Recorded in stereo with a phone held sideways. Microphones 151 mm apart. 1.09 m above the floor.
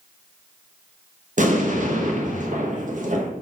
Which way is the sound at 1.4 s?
55° right (ahead or behind).